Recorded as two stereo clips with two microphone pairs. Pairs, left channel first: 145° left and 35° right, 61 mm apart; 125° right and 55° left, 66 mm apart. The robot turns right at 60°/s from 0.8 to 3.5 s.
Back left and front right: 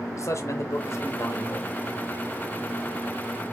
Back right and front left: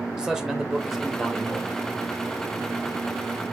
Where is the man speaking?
130° left, 1.0 m; by 1.8 s 170° right, 1.0 m.